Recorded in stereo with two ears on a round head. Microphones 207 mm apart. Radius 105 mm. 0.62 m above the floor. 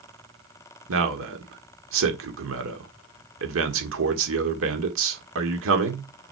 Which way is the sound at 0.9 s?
60° right (ahead or behind).